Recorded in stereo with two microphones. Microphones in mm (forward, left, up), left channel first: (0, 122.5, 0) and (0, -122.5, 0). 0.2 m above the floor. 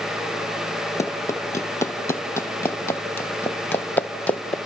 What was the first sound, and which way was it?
Running footsteps, 10° left (ahead or behind).